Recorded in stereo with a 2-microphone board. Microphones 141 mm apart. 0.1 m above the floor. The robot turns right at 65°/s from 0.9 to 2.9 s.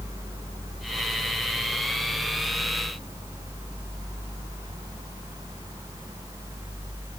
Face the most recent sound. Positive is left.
No sound to turn to.